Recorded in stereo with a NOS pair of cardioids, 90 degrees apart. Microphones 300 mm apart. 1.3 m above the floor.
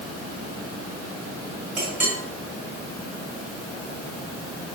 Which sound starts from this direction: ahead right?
A clink, at 1.8 s.